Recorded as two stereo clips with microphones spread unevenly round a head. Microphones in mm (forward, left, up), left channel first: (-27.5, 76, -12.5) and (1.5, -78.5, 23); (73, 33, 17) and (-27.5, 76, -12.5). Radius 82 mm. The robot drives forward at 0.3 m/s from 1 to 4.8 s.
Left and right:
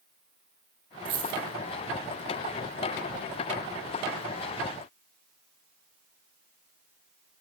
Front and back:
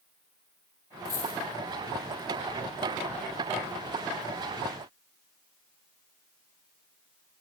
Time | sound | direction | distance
1.1 | a dropped coin | 55° right | 1.1 m